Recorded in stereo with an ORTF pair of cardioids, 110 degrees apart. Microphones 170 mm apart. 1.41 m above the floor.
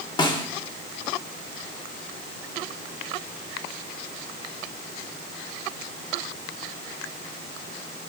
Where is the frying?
No frying in this recording.